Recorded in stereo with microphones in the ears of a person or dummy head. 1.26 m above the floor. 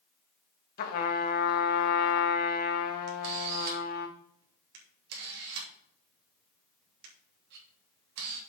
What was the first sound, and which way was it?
A trumpet, 55° left (ahead or behind).